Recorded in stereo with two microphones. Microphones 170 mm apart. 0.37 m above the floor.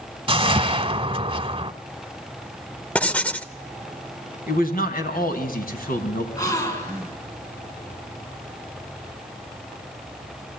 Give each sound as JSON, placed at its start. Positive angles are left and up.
{"t": 0.3, "sound": "a whoosh", "side_deg": -35, "distance_m": 0.8}
{"t": 3.0, "sound": "writing", "side_deg": 10, "distance_m": 0.6}
{"t": 4.5, "sound": "a man speaking", "side_deg": 60, "distance_m": 3.5}
{"t": 6.4, "sound": "a gasp", "side_deg": 20, "distance_m": 4.5}